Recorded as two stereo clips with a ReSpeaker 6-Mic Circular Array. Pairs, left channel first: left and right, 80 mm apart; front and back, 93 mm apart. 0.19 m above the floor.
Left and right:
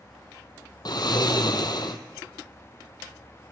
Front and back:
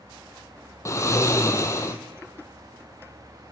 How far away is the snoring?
About 1.5 m.